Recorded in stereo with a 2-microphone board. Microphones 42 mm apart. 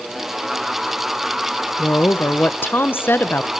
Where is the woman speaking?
55° left (ahead or behind), 0.9 m.